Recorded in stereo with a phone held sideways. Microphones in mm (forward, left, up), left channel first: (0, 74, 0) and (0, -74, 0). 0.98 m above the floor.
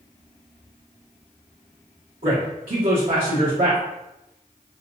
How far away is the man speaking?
About 1.3 m.